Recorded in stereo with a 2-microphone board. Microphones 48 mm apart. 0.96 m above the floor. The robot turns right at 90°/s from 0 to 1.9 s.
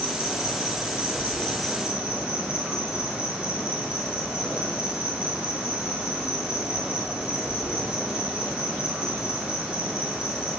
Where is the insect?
30° left, 1.3 m; by 10.6 s 160° right, 1.3 m.